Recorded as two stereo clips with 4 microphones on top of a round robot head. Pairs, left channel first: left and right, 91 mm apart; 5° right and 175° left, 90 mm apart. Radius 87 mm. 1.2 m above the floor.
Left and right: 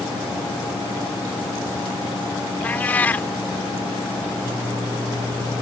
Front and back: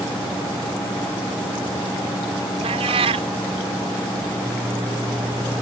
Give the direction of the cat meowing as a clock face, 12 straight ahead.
7 o'clock.